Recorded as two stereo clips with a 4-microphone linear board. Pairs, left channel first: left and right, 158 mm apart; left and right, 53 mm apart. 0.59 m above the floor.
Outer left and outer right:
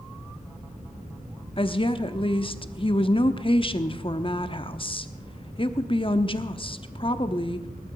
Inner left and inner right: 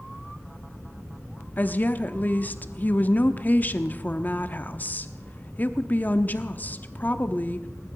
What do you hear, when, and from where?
1.6 s a woman speaking: 35° left (ahead or behind), 0.9 m